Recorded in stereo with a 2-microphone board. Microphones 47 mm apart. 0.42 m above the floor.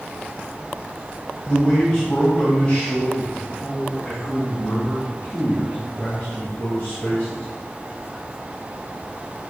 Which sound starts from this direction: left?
A man speaking, at 1.5 s.